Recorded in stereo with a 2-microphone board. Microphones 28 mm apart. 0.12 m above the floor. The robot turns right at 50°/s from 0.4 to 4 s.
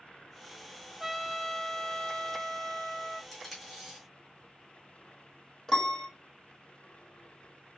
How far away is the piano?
About 1.0 m.